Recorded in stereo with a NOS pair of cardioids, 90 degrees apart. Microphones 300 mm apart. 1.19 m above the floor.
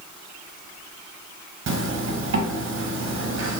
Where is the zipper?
50° right, 0.9 m.